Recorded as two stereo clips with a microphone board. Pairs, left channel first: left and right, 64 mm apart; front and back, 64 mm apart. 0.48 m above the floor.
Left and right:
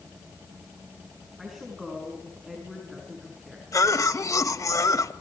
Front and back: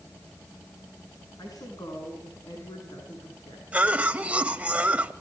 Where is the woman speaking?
Straight ahead, 6 m.